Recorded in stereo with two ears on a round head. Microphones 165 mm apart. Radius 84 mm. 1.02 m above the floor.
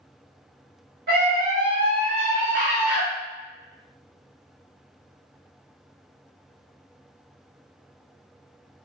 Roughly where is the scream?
Right.